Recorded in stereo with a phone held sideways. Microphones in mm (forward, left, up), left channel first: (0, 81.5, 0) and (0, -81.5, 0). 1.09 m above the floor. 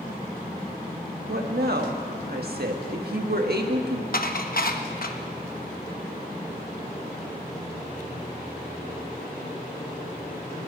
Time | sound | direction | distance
1.3 | a woman speaking | 80° right | 1.4 m
4.1 | dishes clattering | 65° left (ahead or behind) | 0.9 m